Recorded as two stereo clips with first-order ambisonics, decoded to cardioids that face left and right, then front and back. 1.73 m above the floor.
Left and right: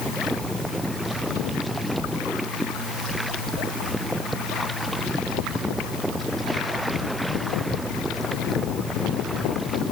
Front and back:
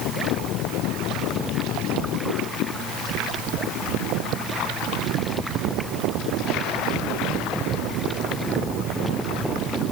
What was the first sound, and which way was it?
Only background noise.